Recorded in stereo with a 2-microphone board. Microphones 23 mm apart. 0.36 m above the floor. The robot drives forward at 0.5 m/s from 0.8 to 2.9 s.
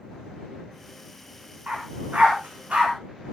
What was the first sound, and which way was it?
A dog barking, 85° right.